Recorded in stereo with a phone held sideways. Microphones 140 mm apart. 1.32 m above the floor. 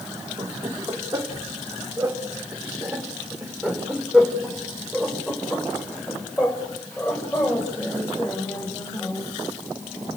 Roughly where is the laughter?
Right.